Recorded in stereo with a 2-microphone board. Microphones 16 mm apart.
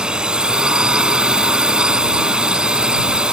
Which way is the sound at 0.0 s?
60° right (ahead or behind).